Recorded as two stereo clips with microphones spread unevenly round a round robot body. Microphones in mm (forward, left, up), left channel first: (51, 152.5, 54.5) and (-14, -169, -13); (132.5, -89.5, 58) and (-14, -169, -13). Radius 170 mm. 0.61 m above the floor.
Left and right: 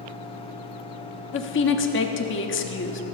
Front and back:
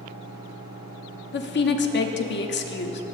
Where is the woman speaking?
25° left, 1.2 m.